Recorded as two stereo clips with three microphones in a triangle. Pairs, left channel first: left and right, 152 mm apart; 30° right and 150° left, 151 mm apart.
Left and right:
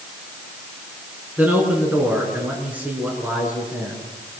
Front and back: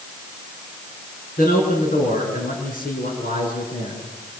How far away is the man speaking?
About 6.5 m.